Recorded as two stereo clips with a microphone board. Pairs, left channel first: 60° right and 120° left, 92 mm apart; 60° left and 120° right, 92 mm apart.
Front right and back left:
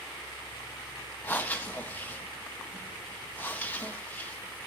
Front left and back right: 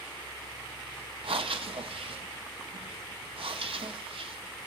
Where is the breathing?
130° right, 0.7 m.